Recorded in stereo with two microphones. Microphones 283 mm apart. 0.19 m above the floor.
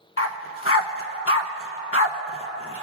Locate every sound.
0.2 s a dog barking: 55° left (ahead or behind), 0.5 m